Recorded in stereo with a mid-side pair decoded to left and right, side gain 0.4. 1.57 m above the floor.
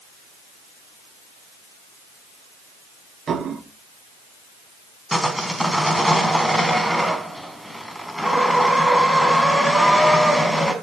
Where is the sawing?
Straight ahead, 4 m.